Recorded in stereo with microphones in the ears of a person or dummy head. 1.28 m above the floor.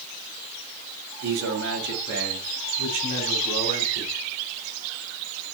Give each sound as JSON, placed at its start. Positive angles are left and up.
{"t": 1.2, "sound": "a man speaking", "side_deg": -65, "distance_m": 3.5}